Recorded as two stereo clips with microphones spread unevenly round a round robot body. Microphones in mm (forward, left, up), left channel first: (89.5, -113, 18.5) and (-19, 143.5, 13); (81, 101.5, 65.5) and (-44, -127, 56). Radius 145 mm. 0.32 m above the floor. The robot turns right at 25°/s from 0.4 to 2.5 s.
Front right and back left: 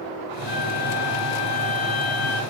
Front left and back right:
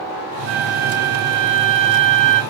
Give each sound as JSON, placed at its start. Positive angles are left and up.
{"t": 0.5, "sound": "a flute", "azimuth_deg": -175, "distance_m": 1.3}